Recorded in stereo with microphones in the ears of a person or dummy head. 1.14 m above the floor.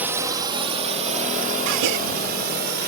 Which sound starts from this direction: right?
A gasp, at 1.7 s.